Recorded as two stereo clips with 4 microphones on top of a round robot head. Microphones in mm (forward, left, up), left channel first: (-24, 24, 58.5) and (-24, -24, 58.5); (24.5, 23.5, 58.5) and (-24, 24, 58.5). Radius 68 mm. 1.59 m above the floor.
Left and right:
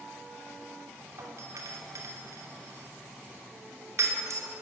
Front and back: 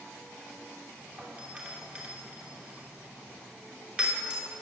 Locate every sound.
1.2 s a doorbell: 115° right, 3 m